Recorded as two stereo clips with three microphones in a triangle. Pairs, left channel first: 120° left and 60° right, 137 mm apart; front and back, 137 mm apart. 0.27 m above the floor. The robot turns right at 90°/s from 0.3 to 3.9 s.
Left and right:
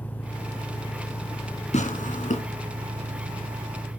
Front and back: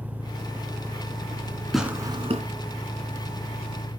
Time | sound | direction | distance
0.0 | an engine running | 30° left | 3 m
1.7 | tearing paper | 90° left | 1.9 m